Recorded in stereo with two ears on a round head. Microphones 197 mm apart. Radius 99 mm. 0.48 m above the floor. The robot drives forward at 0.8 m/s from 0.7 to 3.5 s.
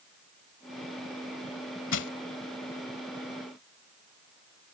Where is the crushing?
60° left (ahead or behind); by 2.1 s 55° left (ahead or behind).